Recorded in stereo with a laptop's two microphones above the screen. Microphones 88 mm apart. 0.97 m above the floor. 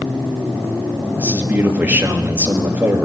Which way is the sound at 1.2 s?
20° right (ahead or behind).